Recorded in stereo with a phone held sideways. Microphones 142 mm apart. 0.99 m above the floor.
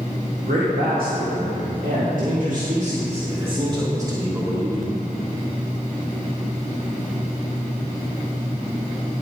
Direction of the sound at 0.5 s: 80° right.